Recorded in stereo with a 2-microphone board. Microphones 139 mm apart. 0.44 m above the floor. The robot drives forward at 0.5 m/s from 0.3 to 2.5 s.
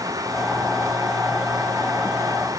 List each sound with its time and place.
Only background noise.